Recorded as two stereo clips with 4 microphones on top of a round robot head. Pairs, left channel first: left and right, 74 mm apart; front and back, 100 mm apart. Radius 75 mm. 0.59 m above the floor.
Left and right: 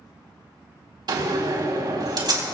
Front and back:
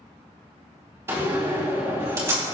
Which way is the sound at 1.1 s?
110° right.